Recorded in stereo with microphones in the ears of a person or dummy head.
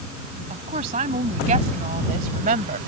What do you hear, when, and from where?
0.5 s a woman speaking: 35° right (ahead or behind); by 2.8 s 40° right (ahead or behind)